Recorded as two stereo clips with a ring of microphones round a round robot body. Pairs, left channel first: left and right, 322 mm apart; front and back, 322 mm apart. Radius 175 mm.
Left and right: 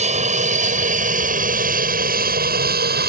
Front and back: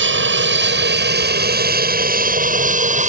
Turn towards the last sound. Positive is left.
turn(degrees=-130)